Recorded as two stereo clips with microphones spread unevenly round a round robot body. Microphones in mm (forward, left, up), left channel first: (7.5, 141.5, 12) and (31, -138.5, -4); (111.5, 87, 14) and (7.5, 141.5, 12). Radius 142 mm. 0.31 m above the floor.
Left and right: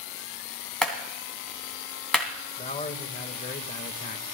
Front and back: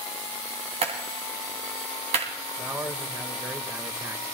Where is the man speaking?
120° left, 1.3 m.